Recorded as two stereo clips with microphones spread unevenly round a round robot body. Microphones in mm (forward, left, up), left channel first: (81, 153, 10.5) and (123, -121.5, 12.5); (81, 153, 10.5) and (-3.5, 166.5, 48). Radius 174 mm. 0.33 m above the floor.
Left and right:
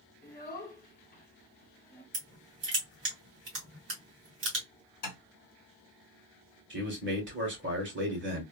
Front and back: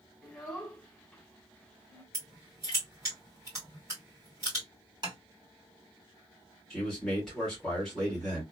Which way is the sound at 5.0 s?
120° left.